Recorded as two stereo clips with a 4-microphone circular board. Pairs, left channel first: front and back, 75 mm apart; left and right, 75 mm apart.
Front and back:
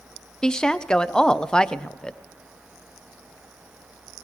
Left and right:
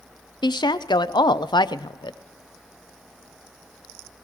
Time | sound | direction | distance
0.4 | a woman speaking | 80° left | 0.5 m